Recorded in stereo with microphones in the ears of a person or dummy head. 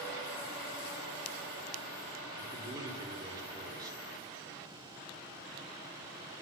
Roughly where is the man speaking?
Right.